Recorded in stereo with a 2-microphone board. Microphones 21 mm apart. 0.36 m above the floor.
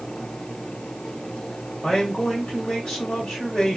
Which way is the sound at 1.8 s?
50° left (ahead or behind).